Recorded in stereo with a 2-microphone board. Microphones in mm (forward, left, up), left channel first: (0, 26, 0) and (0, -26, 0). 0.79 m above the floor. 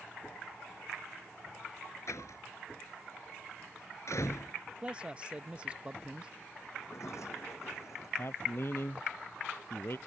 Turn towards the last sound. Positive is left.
turn(degrees=50)  # may be behind; listen again after turning